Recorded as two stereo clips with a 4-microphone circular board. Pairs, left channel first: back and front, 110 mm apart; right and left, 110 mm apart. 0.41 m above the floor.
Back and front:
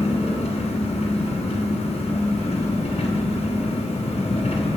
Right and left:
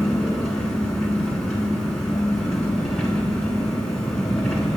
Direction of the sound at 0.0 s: 175° right.